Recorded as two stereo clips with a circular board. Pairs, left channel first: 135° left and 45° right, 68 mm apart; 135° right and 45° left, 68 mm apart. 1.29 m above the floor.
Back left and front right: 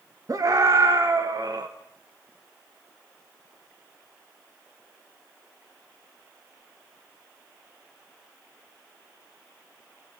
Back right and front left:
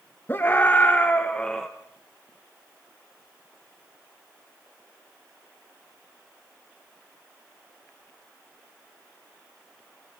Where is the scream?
80° right, 1.8 m; by 1.7 s 55° right, 1.3 m.